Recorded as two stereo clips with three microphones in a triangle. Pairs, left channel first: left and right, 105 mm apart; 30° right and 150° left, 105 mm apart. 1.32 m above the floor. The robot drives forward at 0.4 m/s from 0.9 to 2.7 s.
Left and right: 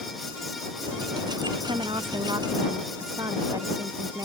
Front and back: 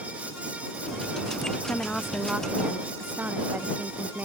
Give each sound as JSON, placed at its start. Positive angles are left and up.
{"t": 1.6, "sound": "a woman speaking", "azimuth_deg": -100}